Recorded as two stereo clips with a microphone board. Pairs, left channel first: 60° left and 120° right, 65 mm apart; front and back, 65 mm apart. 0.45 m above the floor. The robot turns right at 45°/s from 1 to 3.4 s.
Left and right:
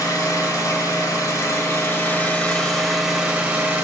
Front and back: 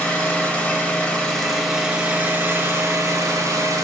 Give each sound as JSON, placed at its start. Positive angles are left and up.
{"t": 0.0, "sound": "an engine running", "azimuth_deg": 65, "distance_m": 2.0}